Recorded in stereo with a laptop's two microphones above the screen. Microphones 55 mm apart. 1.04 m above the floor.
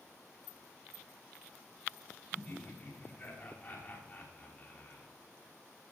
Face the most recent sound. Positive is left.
turn(degrees=25)  # may be behind; listen again after turning